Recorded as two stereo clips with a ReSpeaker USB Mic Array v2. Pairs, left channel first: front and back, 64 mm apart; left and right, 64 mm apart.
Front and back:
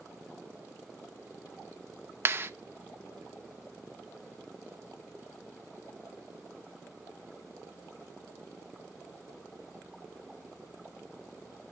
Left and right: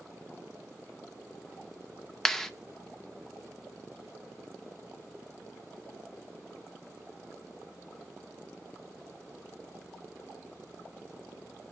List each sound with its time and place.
2.2 s a clap: 170° left, 0.5 m